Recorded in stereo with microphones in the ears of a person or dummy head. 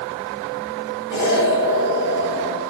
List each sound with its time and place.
1.1 s an explosion: 55° left (ahead or behind), 2.5 m